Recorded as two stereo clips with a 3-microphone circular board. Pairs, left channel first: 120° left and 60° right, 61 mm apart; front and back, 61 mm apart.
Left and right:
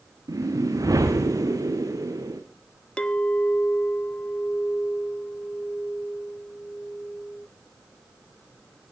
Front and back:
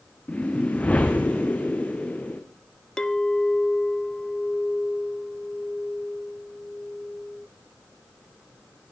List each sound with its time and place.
0.3 s a whoosh: 65° right, 2.5 m
3.0 s a clink: 65° left, 0.7 m